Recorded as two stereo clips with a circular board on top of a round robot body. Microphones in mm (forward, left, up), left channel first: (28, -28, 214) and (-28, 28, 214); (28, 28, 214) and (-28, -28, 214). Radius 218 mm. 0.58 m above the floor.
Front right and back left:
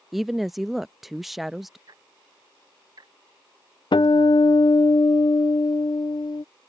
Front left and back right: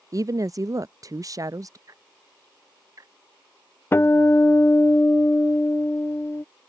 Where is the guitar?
20° right.